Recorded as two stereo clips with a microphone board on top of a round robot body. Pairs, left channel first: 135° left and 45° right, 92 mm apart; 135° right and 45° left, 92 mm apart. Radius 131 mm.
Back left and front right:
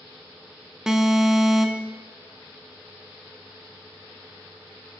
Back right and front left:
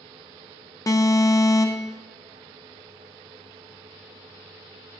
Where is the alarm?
125° right, 1.2 m.